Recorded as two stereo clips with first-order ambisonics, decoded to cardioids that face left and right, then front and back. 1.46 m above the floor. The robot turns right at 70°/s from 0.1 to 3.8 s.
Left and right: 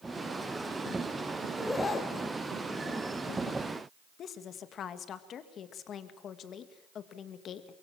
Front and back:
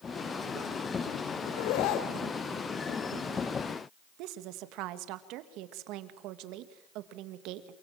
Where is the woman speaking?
150° left, 1.9 m.